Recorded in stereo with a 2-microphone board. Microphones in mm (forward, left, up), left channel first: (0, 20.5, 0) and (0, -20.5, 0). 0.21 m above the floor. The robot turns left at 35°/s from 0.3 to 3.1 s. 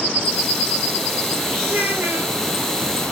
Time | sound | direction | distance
1.7 | a child speaking | 50° right (ahead or behind) | 4 m